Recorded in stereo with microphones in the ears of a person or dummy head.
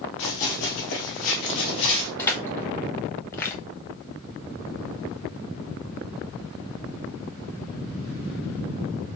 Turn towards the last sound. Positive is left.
turn(degrees=15)  # may be behind; listen again after turning